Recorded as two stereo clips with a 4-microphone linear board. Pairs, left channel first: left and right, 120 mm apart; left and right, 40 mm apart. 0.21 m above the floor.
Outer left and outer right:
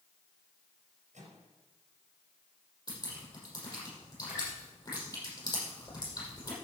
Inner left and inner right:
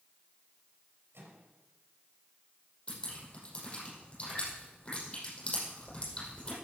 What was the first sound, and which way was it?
A microwave, 75° right (ahead or behind).